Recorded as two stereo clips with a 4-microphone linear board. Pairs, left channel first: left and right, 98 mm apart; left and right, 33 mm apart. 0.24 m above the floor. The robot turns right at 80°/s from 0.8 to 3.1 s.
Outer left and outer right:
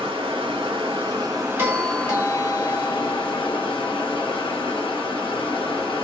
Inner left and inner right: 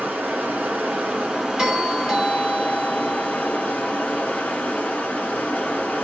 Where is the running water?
85° right, 1.8 m; by 6.0 s 95° left, 1.8 m.